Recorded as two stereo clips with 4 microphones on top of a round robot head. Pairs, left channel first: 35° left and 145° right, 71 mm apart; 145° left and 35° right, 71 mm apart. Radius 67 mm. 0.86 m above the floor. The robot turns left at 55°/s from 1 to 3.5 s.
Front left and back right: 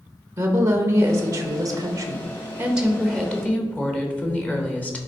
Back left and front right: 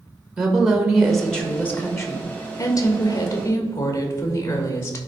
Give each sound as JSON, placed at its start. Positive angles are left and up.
{"t": 0.4, "sound": "a woman speaking", "azimuth_deg": -120, "distance_m": 1.4}